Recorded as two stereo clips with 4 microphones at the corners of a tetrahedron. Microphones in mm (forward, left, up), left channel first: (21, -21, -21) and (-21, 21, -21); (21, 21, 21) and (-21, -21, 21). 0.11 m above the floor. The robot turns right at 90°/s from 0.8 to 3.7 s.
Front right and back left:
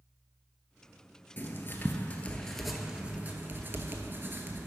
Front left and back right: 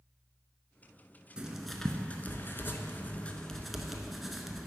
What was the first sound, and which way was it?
Writing, 70° right.